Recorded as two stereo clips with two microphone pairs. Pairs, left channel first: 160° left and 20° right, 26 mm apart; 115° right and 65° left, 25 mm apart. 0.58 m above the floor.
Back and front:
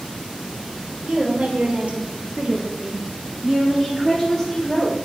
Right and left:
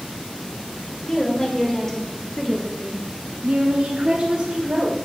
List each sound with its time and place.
1.0 s a woman speaking: 50° right, 2 m; by 5.0 s 95° left, 1.6 m